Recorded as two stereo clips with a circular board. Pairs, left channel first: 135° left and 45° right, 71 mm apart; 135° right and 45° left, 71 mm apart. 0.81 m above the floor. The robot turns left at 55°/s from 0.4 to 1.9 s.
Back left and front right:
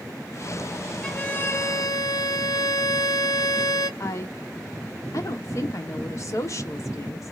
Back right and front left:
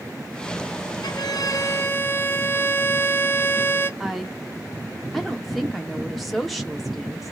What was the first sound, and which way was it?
A violin, 145° right.